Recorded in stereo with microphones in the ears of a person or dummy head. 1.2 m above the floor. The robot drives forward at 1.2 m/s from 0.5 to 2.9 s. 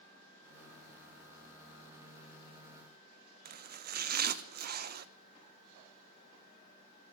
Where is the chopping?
50° right (ahead or behind), 0.6 m.